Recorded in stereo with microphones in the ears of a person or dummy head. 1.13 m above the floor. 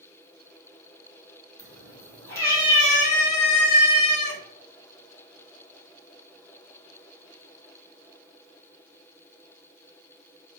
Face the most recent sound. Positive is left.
turn(degrees=60)  # may be behind; listen again after turning